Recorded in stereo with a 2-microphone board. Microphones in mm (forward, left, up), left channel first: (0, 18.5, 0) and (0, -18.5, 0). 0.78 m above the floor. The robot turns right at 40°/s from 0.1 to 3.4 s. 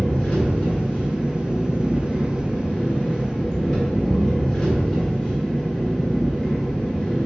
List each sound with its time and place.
0.0 s an engine running: 35° left, 1.3 m; by 7.3 s 170° left, 1.3 m